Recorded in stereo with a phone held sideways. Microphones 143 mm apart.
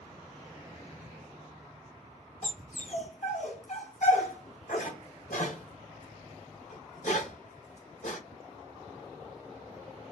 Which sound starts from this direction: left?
A dog barking, at 2.4 s.